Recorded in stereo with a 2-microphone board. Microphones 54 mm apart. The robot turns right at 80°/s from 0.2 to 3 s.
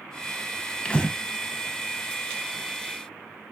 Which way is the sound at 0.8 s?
20° left (ahead or behind).